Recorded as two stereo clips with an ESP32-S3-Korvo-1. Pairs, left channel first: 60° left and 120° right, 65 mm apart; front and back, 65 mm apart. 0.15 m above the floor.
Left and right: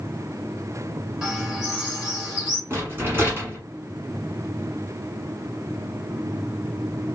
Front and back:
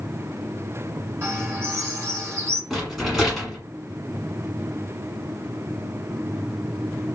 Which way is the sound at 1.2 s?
165° left.